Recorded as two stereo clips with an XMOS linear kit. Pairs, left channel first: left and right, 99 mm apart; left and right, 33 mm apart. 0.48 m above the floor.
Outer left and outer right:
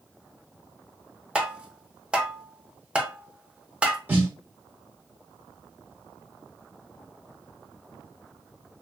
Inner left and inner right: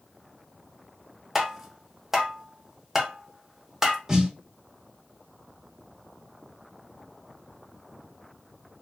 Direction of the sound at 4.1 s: 20° right (ahead or behind).